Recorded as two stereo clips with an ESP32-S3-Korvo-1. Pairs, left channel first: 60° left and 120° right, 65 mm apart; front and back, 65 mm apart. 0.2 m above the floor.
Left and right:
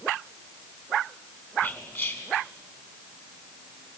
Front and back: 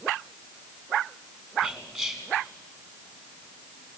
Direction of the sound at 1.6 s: 95° left.